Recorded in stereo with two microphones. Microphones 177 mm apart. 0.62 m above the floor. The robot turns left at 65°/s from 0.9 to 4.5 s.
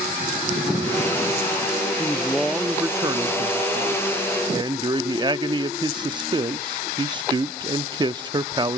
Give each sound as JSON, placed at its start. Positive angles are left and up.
{"t": 2.0, "sound": "a man speaking", "azimuth_deg": 30, "distance_m": 0.7}